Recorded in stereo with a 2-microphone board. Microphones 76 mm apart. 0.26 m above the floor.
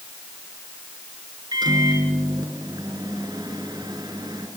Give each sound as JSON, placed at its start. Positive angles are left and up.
{"t": 1.5, "sound": "a microwave", "side_deg": -65, "distance_m": 3.0}